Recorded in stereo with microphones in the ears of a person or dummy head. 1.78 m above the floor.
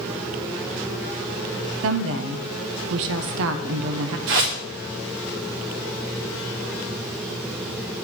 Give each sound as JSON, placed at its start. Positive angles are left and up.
{"t": 1.8, "sound": "a woman speaking", "side_deg": -70, "distance_m": 0.7}
{"t": 4.3, "sound": "a whoosh", "side_deg": -60, "distance_m": 1.9}